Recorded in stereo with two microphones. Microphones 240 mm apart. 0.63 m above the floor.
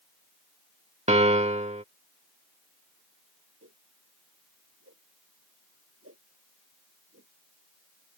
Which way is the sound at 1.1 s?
30° right (ahead or behind).